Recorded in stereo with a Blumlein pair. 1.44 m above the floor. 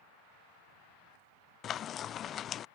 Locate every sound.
1.6 s frying: 25° left